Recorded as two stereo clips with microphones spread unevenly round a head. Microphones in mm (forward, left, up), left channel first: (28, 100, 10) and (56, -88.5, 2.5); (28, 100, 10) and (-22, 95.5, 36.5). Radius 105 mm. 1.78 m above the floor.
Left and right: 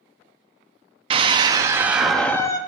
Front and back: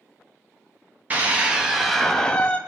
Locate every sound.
1.1 s a scream: 145° right, 0.9 m; by 2.6 s 105° left, 0.5 m